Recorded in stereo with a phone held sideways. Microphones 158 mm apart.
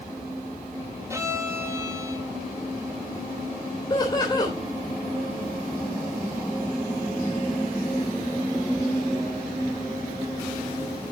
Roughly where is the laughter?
Left.